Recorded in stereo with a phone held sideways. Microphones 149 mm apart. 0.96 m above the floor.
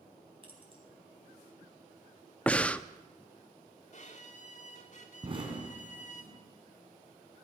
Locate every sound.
0.4 s keys jangling: 35° right (ahead or behind), 4.5 m
2.5 s breathing: 10° left (ahead or behind), 0.6 m
3.9 s a violin: 55° left (ahead or behind), 2 m
5.2 s an explosion: 35° right (ahead or behind), 3.5 m